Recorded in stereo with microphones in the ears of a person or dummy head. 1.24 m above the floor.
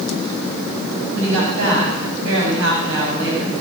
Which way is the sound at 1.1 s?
75° right (ahead or behind).